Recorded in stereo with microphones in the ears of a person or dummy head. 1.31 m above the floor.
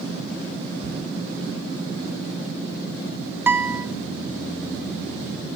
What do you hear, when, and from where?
0.8 s a thud: 50° left (ahead or behind), 3 m
3.5 s a guitar: 10° right (ahead or behind), 0.7 m